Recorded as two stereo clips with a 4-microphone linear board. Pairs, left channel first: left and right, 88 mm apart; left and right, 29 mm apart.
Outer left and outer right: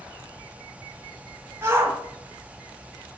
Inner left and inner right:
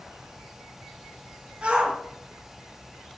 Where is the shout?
30° right (ahead or behind), 3 m.